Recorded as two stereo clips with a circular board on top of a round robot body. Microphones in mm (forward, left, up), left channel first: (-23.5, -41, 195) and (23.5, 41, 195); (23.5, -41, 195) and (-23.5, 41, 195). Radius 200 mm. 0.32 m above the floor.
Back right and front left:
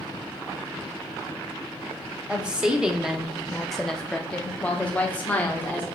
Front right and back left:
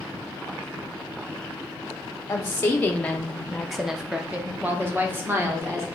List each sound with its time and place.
2.3 s a woman speaking: 10° right, 1.4 m; by 5.8 s 175° left, 1.8 m